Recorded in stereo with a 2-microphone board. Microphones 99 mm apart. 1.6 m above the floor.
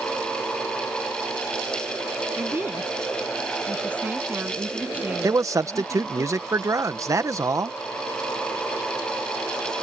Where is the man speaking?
30° right (ahead or behind).